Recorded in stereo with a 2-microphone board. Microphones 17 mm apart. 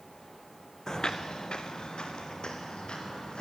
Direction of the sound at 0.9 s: 40° left (ahead or behind).